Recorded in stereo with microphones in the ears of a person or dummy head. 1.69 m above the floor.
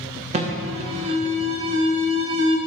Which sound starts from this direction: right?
An alarm, at 0.3 s.